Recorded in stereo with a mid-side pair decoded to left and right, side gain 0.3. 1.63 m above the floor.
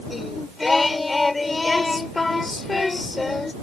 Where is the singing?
30° left.